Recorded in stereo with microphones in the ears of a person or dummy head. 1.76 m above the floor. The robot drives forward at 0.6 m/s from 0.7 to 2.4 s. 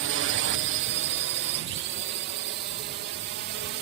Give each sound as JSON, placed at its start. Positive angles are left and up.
{"t": 0.0, "sound": "a drone", "side_deg": -55}